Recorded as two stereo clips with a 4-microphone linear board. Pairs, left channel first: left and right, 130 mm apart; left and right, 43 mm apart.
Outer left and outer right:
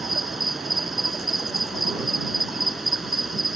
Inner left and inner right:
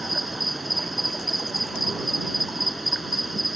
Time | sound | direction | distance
0.0 | an insect | centre (ahead or behind) | ?